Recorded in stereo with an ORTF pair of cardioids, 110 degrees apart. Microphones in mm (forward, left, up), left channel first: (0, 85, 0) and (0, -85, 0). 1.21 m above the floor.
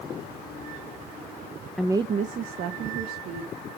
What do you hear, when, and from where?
1.8 s a woman speaking: straight ahead, 0.5 m; by 3.6 s 75° right, 2 m